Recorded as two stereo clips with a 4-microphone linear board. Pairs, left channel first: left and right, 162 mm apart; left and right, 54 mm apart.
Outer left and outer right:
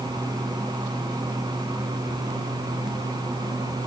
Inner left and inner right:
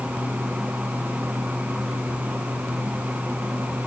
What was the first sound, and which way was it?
Only background noise.